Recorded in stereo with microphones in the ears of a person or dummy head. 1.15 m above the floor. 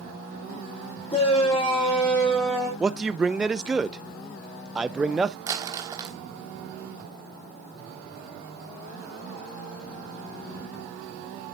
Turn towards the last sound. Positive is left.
turn(degrees=-15)  # may be behind; listen again after turning